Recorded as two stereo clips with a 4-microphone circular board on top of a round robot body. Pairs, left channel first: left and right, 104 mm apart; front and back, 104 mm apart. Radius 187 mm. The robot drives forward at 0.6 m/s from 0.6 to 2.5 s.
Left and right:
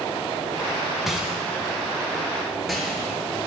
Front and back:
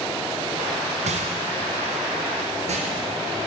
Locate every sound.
1.1 s a rattle: 175° right, 0.6 m; by 3.1 s straight behind, 1.5 m